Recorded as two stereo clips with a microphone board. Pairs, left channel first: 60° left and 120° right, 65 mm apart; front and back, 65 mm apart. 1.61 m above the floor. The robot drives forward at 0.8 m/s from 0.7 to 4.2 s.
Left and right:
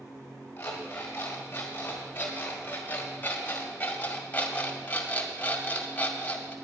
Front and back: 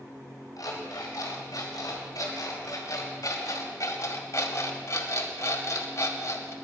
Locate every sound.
0.6 s an alarm clock: straight ahead, 4 m; by 6.5 s 5° left, 1.6 m